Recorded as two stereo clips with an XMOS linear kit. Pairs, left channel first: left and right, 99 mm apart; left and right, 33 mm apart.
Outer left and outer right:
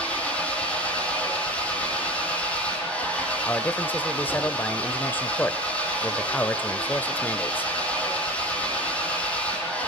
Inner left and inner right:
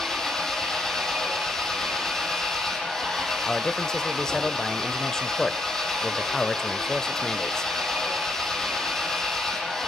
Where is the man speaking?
20° left (ahead or behind), 1.2 m.